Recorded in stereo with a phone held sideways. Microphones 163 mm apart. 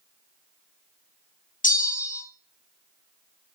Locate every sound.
1.6 s a bell: 60° left (ahead or behind), 1.0 m